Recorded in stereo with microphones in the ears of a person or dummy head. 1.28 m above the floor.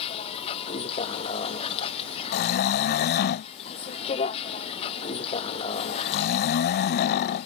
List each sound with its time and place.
0.0 s a vehicle: 40° left (ahead or behind)
2.3 s snoring: 50° left (ahead or behind)